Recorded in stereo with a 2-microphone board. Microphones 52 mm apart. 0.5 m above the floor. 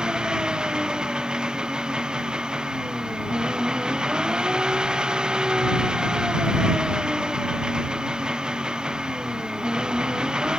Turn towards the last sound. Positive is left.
turn(degrees=-15)  # may be behind; listen again after turning